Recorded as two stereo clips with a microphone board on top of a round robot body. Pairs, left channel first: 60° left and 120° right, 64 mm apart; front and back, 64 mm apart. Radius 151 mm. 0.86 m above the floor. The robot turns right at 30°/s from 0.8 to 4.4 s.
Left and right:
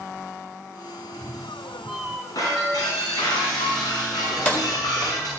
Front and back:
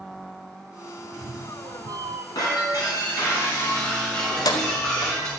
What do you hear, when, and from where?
1.0 s a cat meowing: 130° left, 1.2 m; by 2.2 s 170° left, 1.2 m
2.4 s breaking glass: 25° left, 4 m; by 5.3 s 85° left, 4 m
4.3 s keys jangling: 10° right, 1.6 m; by 5.2 s 5° right, 1.6 m